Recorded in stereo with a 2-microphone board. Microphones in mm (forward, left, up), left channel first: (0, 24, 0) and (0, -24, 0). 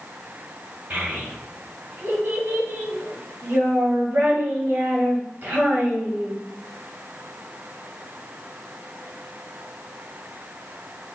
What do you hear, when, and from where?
0.9 s a child speaking: 40° right (ahead or behind), 1.7 m